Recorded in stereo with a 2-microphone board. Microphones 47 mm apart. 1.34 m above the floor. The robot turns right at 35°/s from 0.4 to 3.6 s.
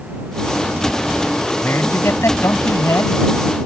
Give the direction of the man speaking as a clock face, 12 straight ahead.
10 o'clock.